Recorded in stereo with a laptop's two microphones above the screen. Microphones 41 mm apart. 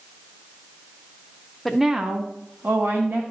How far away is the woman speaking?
About 0.6 m.